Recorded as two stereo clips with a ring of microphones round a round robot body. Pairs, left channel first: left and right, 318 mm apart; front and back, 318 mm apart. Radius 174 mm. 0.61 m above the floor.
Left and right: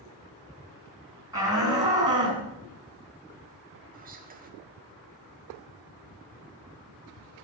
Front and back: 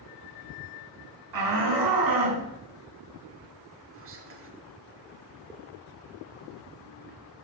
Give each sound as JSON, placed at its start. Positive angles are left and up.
{"t": 1.3, "sound": "a shout", "azimuth_deg": -170, "distance_m": 6.5}
{"t": 3.9, "sound": "whispering", "azimuth_deg": -145, "distance_m": 1.7}